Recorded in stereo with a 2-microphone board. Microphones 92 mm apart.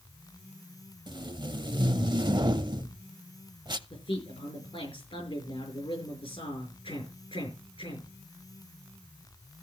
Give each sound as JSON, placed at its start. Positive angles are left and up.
{"t": 1.1, "sound": "tape being pulled", "side_deg": -55, "distance_m": 0.6}
{"t": 3.9, "sound": "a man speaking", "side_deg": 75, "distance_m": 5.5}